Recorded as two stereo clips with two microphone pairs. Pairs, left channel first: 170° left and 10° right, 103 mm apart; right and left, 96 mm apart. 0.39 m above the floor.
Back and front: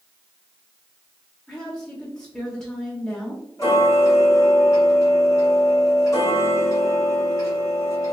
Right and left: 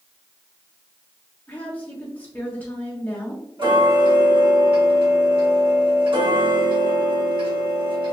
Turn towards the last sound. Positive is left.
turn(degrees=115)